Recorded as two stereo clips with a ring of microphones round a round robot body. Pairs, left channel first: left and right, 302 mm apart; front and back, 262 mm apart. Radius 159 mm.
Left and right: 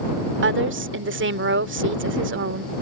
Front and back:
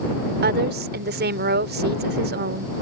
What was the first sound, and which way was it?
A woman speaking, 135° right.